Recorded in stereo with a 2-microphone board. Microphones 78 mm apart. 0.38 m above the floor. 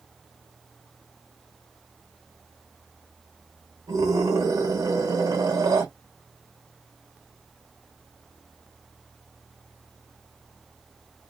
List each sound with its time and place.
3.9 s a scream: 60° right (ahead or behind), 2.5 m